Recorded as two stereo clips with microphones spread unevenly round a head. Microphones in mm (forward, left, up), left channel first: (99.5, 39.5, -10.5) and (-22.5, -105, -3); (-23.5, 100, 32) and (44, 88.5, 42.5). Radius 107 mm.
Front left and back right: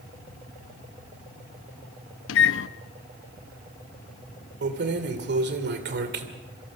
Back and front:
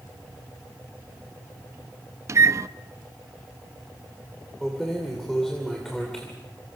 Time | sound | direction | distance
2.3 | a microwave | 35° left | 0.7 m
4.6 | keys jangling | 100° right | 2.5 m